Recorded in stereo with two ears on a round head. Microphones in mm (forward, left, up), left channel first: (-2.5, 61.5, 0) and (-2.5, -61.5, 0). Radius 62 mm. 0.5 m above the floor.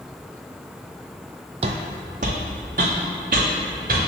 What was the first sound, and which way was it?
Footsteps, 50° right (ahead or behind).